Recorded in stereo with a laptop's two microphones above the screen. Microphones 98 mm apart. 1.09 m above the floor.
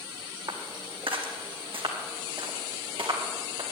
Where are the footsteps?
60° right (ahead or behind), 2 m.